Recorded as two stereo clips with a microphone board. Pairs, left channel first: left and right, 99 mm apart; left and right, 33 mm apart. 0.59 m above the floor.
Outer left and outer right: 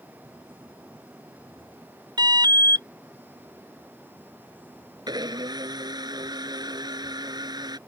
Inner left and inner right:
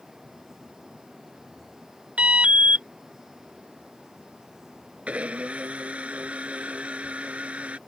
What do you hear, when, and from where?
2.2 s an alarm: 45° right (ahead or behind)
5.1 s a blender: 40° right (ahead or behind)